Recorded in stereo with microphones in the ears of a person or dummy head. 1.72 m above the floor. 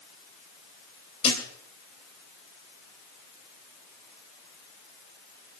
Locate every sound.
1.2 s a thud: 35° left (ahead or behind), 3 m